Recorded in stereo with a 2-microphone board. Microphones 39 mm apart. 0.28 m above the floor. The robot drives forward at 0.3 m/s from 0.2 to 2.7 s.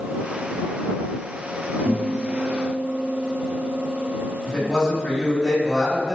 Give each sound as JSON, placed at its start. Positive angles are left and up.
{"t": 1.9, "sound": "a guitar", "side_deg": -60, "distance_m": 0.9}
{"t": 4.4, "sound": "a man speaking", "side_deg": 0, "distance_m": 1.5}